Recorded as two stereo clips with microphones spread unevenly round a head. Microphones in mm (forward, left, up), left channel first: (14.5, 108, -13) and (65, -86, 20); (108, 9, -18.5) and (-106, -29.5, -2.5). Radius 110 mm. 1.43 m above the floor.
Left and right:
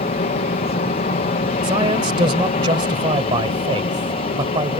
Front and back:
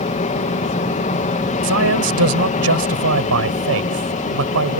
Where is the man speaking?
145° right.